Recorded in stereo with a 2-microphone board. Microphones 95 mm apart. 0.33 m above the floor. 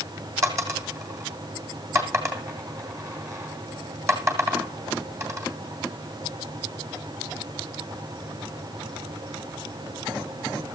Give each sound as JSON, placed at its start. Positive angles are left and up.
{"t": 0.4, "sound": "a dropped coin", "side_deg": -30, "distance_m": 2.5}